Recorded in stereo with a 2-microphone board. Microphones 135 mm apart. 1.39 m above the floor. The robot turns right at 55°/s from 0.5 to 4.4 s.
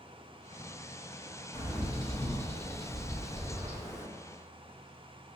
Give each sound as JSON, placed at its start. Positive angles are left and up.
{"t": 1.5, "sound": "a bird", "azimuth_deg": 100, "distance_m": 1.1}